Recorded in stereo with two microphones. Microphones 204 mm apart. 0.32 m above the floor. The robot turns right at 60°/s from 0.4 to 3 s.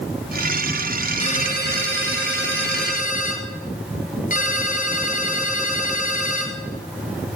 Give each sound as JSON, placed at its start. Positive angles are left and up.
{"t": 1.2, "sound": "a ringtone", "azimuth_deg": 30, "distance_m": 2.5}